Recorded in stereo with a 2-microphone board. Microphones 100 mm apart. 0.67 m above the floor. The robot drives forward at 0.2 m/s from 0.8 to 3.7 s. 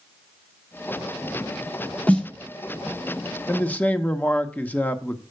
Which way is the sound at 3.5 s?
20° left (ahead or behind).